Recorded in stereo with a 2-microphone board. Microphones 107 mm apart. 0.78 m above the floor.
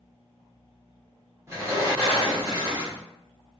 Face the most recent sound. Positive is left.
turn(degrees=-25)  # may be behind; listen again after turning